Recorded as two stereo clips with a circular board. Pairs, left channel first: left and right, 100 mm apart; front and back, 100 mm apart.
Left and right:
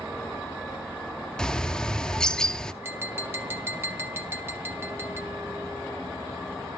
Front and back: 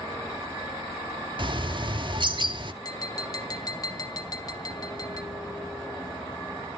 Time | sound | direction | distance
1.4 | a bird | 170° left | 0.7 m
2.8 | tapping | 30° right | 1.6 m